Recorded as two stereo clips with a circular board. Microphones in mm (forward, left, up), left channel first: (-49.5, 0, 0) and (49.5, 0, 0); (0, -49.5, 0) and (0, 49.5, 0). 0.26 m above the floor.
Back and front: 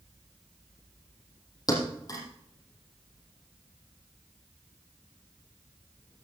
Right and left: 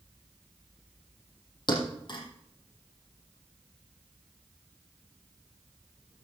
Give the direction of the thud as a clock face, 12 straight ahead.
4 o'clock.